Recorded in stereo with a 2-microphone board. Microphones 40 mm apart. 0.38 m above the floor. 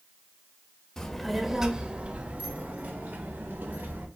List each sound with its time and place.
1.0 s a child speaking: 15° left (ahead or behind), 0.8 m; by 4.0 s 65° right (ahead or behind), 1.9 m